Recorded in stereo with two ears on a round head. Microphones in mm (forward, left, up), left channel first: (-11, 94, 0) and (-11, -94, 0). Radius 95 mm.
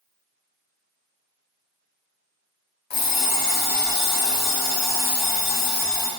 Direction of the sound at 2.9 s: 50° left (ahead or behind).